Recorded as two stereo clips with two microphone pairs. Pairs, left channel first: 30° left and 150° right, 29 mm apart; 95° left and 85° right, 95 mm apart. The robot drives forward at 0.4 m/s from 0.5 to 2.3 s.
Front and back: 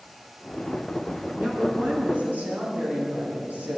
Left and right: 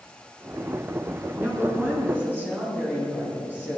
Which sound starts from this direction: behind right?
A woman speaking, at 1.4 s.